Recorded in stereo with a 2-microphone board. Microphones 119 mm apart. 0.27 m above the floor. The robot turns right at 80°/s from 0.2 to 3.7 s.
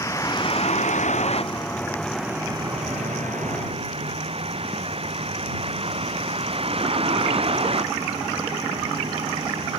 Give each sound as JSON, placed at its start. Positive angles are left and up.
{"t": 0.0, "sound": "a vehicle", "azimuth_deg": 25}